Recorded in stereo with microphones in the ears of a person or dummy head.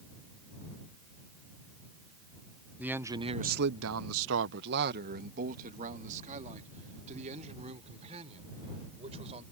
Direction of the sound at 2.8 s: 10° right (ahead or behind).